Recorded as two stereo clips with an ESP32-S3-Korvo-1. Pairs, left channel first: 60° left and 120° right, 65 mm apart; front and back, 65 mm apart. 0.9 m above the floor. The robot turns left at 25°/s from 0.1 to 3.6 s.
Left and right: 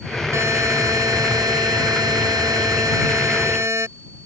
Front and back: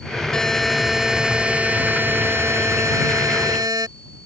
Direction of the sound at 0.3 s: 80° right.